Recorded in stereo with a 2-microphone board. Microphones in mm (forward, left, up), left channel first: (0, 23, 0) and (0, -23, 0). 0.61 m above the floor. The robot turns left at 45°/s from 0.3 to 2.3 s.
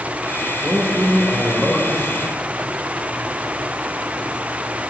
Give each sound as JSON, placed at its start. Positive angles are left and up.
{"t": 0.6, "sound": "a man speaking", "azimuth_deg": -90, "distance_m": 1.9}